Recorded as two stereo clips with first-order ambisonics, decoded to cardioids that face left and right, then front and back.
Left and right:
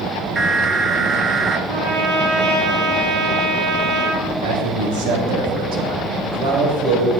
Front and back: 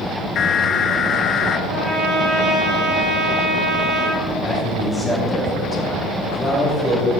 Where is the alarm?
20° right, 0.8 m.